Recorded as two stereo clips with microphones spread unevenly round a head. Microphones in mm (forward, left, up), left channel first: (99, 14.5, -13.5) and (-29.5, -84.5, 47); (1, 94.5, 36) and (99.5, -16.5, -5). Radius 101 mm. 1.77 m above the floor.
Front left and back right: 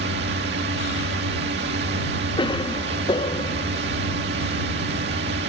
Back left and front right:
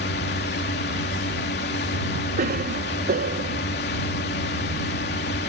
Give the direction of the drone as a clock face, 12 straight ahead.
6 o'clock.